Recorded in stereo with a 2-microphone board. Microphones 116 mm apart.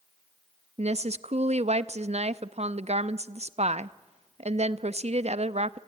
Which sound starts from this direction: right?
A woman speaking, at 0.8 s.